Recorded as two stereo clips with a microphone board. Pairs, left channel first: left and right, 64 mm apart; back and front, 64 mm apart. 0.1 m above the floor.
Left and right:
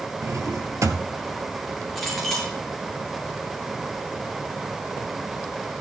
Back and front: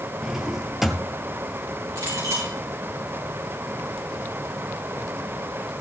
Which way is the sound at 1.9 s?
5° left.